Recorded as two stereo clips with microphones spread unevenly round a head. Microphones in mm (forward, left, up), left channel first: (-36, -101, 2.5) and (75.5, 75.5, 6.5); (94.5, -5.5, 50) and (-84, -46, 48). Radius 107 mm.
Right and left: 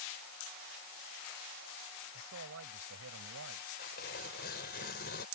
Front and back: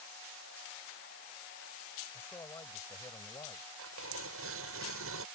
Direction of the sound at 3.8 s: 170° right.